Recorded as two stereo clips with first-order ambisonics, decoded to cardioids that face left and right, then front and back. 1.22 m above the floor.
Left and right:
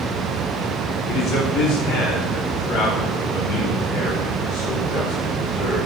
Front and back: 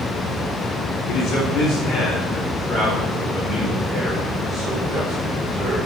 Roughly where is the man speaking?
Ahead left.